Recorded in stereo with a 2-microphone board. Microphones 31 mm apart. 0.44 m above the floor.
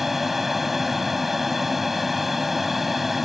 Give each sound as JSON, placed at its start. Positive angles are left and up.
{"t": 0.0, "sound": "an aircraft", "side_deg": -5}